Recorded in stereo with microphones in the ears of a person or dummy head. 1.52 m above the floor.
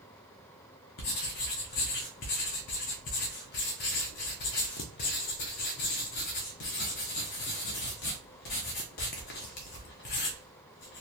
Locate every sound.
1.0 s writing: 40° left (ahead or behind), 0.6 m